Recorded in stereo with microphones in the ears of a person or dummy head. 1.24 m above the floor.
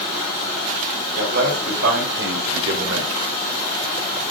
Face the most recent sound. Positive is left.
turn(degrees=-85)